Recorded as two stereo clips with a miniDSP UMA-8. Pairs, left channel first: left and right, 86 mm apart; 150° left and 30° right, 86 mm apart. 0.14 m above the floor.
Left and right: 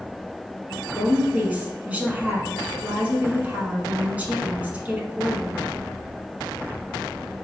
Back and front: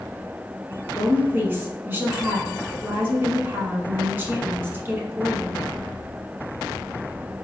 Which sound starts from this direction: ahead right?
A woman speaking, at 0.9 s.